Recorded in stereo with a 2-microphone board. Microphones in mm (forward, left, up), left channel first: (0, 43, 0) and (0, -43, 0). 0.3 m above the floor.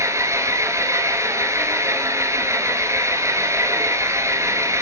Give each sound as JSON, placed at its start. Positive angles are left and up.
{"t": 0.0, "sound": "an engine running", "side_deg": -35, "distance_m": 1.6}